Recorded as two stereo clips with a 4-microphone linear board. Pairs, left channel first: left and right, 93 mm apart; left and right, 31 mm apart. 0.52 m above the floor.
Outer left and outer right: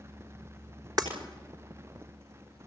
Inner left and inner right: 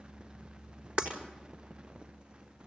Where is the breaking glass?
45° right (ahead or behind), 5 m.